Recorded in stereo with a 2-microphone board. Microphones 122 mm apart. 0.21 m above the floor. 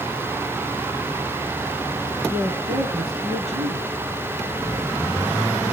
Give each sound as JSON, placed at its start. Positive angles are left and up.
{"t": 2.3, "sound": "a woman speaking", "side_deg": -60, "distance_m": 3.0}